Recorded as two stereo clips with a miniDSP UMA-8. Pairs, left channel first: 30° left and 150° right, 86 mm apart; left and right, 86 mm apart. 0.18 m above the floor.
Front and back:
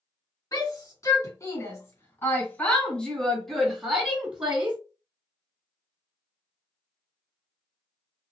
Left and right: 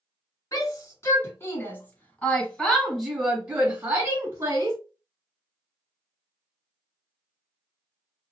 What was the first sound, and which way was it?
A shout, 55° left.